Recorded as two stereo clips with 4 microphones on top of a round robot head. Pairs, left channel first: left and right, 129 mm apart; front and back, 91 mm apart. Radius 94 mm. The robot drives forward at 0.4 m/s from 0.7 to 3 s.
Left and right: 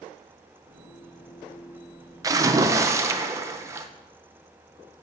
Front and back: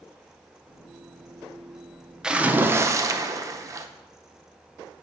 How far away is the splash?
About 0.6 m.